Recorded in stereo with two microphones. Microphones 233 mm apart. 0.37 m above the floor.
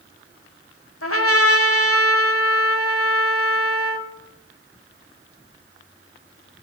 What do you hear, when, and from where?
1.0 s a trumpet: 70° left (ahead or behind), 1.1 m